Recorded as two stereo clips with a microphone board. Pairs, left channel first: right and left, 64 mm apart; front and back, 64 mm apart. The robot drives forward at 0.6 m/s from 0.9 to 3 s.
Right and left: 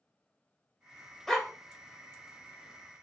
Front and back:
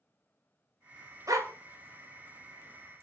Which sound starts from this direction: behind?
A dog barking, at 1.3 s.